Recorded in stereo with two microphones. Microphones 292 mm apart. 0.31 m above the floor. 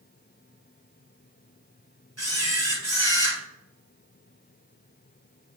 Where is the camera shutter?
50° right (ahead or behind), 2.5 m.